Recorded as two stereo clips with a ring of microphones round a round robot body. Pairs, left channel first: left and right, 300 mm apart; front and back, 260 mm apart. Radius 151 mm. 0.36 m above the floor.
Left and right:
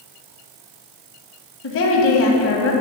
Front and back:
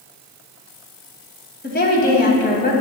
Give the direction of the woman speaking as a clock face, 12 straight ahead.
10 o'clock.